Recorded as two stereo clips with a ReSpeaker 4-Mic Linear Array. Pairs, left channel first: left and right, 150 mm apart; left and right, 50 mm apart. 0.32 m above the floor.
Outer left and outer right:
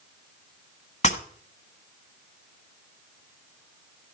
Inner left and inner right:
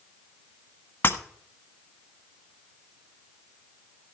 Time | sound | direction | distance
1.0 | breaking glass | 45° left (ahead or behind) | 1.2 m